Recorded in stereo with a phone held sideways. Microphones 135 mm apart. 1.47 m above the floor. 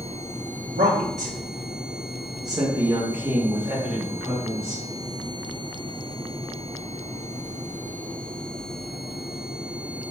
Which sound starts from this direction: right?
A woman speaking, at 0.6 s.